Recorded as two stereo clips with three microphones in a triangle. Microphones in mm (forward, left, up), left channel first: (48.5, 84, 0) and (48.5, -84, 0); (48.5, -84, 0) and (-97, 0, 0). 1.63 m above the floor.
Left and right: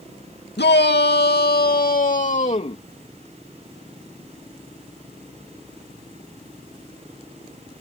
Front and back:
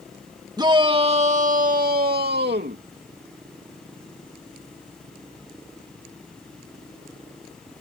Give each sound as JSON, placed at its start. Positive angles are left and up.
{"t": 0.6, "sound": "a shout", "azimuth_deg": 85}